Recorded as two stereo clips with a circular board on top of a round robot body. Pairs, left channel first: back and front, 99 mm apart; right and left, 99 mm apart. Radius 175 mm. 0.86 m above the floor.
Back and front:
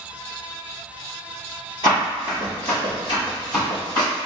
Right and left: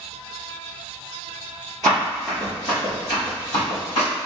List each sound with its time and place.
1.8 s running footsteps: 150° right, 0.8 m; by 4.1 s 130° right, 1.7 m